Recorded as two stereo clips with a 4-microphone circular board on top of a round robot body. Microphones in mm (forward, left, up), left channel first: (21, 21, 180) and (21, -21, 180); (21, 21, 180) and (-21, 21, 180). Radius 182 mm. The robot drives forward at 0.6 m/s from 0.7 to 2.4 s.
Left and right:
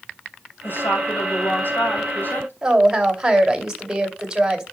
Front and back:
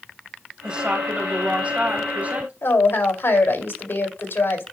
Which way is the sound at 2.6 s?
15° right.